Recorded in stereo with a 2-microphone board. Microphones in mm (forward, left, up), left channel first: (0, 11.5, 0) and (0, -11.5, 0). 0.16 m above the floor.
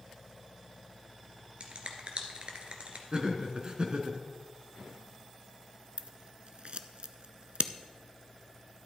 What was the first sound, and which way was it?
A finger snap, 55° right (ahead or behind).